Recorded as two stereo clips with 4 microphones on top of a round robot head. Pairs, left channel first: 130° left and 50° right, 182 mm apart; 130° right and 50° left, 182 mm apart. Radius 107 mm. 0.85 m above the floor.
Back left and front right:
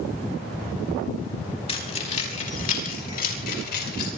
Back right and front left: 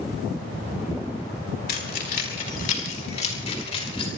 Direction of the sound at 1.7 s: 170° right.